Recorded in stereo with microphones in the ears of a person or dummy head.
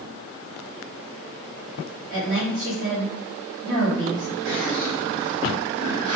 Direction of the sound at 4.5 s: 75° right (ahead or behind).